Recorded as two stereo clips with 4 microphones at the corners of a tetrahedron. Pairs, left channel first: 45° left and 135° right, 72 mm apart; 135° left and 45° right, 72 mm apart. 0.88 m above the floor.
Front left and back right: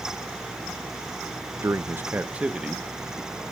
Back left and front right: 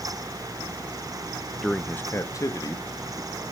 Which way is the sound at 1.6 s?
135° right.